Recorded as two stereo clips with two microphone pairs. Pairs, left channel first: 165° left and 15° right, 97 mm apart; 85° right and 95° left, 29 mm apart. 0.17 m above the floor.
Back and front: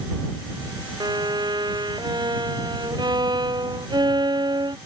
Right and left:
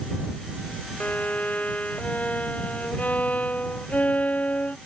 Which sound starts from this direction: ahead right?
A violin, at 1.0 s.